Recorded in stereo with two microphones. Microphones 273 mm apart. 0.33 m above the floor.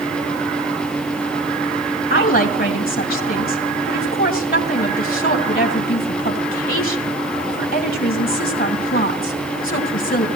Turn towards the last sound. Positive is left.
turn(degrees=30)  # may be behind; listen again after turning